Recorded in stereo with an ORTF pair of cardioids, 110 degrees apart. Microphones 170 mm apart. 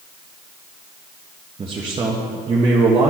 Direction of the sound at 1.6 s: 30° right.